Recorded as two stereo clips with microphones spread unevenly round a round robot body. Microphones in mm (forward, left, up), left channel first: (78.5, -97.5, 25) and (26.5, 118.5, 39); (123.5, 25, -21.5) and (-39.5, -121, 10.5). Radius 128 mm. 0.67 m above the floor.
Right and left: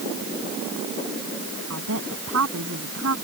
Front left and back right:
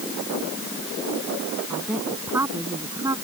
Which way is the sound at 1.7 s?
140° left.